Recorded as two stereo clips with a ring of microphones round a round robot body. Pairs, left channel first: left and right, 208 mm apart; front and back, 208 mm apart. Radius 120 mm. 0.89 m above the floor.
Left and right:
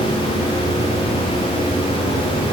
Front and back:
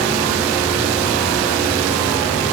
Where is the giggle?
No giggle in this recording.